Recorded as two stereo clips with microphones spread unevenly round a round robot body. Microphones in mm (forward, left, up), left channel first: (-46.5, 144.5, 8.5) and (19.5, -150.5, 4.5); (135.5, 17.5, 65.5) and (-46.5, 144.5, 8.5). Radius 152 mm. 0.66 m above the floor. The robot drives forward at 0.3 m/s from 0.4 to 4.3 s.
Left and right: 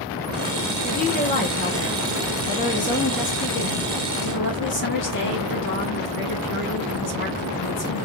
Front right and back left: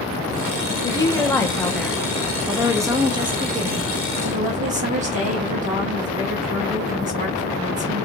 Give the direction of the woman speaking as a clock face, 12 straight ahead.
10 o'clock.